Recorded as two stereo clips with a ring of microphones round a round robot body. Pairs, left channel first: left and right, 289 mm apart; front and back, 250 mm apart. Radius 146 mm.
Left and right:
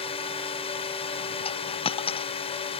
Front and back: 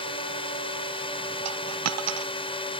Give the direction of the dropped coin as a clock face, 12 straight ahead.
7 o'clock.